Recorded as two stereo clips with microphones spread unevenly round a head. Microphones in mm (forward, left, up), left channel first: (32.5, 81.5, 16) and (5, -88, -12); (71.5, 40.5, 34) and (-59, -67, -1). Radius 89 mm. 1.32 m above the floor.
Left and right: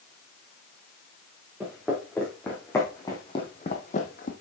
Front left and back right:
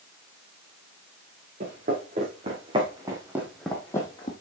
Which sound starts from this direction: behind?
Footsteps, at 1.6 s.